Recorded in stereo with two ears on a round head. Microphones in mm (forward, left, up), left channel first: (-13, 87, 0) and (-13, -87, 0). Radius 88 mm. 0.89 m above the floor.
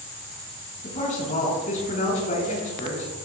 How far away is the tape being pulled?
No tape being pulled in this recording.